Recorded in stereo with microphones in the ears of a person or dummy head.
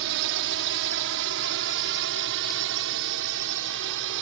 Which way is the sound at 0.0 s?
65° right (ahead or behind).